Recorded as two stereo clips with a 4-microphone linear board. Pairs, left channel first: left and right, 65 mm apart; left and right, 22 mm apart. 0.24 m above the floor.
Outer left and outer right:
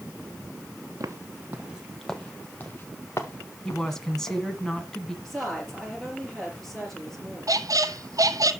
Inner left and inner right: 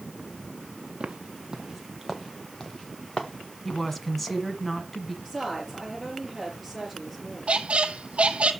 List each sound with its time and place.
1.0 s footsteps: 55° right (ahead or behind), 1.3 m; by 4.4 s 55° left (ahead or behind), 3 m
3.6 s a woman speaking: 10° left (ahead or behind), 1.7 m
5.2 s a woman speaking: 5° left (ahead or behind), 5.5 m
7.5 s a squeak: 60° right (ahead or behind), 0.8 m